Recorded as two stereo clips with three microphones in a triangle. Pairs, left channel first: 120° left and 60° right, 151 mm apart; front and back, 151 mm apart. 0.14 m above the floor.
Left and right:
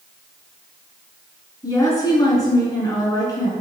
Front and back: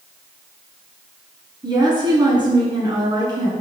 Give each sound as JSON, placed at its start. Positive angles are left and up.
{"t": 1.6, "sound": "a woman speaking", "azimuth_deg": 160, "distance_m": 1.2}